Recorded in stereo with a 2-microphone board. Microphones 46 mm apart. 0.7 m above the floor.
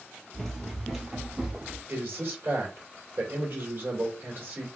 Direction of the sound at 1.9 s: 45° right (ahead or behind).